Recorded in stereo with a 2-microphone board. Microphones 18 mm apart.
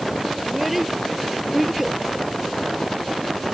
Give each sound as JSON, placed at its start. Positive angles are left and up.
{"t": 0.4, "sound": "a child speaking", "side_deg": -10}